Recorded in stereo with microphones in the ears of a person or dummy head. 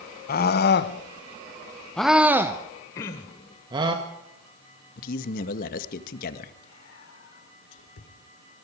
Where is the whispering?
75° left (ahead or behind), 4 m.